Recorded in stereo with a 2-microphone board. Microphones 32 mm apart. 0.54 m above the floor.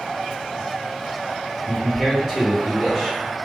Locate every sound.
1.7 s a man speaking: 20° left (ahead or behind), 1.0 m